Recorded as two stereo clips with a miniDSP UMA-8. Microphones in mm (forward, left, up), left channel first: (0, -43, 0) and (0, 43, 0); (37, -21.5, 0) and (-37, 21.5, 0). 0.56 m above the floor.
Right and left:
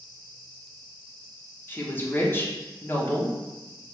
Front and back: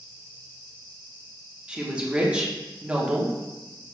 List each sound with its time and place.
1.7 s a woman speaking: 140° right, 0.7 m